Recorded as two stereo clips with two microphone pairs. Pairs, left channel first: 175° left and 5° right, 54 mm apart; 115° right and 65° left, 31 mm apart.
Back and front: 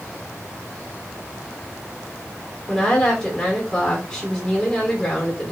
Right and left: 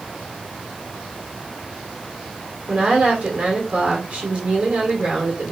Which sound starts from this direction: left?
A woman speaking, at 2.7 s.